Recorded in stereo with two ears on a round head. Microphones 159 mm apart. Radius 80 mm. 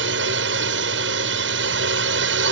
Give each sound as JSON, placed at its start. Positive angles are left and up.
{"t": 0.0, "sound": "a drone", "side_deg": -75}